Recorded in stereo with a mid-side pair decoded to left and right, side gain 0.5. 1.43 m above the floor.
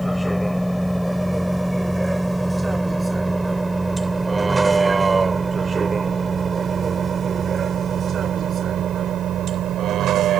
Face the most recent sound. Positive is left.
turn(degrees=-65)